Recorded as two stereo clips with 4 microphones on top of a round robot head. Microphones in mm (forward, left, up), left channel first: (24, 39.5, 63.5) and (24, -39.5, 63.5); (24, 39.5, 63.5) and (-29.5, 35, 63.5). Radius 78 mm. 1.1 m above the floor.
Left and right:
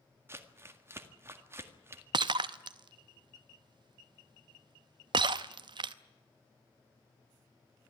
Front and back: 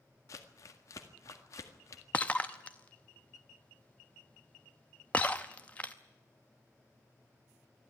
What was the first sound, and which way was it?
Crumpling, 30° right.